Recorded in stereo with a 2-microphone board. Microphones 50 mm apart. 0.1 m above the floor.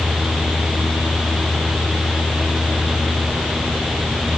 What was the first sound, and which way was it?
Only background noise.